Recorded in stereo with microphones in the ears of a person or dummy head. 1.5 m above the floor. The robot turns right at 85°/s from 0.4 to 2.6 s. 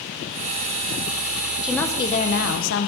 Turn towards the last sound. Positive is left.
turn(degrees=75)